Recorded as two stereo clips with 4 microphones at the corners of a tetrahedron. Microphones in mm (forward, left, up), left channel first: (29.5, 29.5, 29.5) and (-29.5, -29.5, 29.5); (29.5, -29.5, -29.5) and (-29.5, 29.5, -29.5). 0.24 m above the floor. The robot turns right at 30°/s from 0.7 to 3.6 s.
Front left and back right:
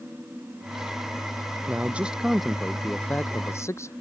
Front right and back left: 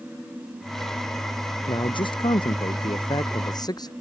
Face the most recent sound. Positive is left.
turn(degrees=-10)